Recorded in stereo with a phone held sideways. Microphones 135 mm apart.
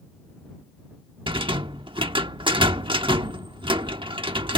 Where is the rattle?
40° right (ahead or behind).